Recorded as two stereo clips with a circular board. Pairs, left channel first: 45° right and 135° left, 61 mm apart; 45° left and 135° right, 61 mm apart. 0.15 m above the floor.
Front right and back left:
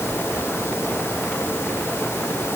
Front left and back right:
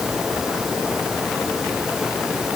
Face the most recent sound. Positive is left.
No sound to turn to.